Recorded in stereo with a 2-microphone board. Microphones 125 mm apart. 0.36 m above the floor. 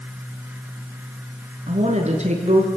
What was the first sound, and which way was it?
A woman speaking, 65° right (ahead or behind).